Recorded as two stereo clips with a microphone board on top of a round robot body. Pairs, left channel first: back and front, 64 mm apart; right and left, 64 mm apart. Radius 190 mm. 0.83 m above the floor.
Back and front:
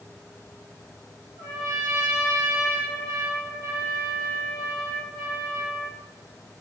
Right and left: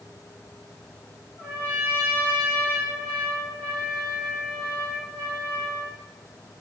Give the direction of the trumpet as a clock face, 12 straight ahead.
1 o'clock.